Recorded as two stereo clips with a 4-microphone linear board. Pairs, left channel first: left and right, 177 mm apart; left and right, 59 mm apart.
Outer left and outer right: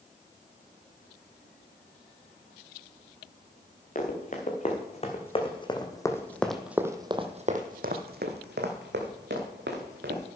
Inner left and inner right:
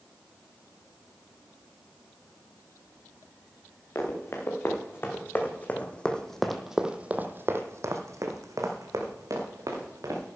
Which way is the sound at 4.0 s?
45° left (ahead or behind).